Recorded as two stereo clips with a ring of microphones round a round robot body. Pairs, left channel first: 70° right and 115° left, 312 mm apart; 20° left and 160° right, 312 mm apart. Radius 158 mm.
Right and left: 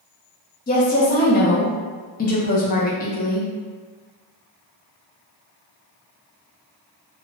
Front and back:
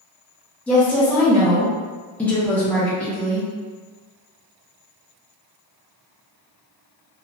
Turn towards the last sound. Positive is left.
turn(degrees=-60)